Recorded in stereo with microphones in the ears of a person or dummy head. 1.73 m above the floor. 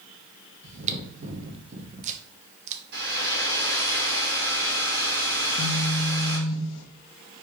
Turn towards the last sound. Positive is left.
turn(degrees=65)  # may be behind; listen again after turning